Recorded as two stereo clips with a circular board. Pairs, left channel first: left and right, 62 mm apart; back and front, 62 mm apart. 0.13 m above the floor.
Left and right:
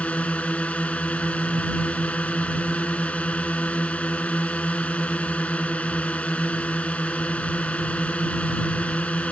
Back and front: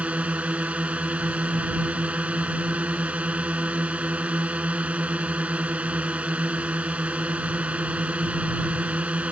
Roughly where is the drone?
Ahead left.